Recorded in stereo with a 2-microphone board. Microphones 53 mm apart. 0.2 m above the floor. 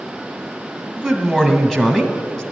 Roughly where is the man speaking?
Centre.